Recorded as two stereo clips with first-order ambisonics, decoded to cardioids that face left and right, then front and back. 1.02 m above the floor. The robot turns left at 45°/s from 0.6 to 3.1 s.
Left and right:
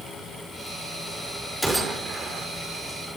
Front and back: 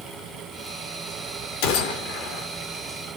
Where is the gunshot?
Straight ahead, 4 m; by 2.5 s 40° right, 4 m.